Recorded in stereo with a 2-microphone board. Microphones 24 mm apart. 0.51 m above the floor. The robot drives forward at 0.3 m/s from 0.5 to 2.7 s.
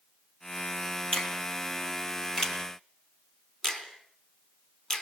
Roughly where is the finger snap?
Left.